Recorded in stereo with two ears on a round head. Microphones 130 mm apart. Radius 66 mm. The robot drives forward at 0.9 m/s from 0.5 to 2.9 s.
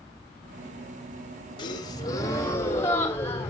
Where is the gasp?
30° left (ahead or behind), 1.1 m; by 3.5 s 15° left (ahead or behind), 1.9 m.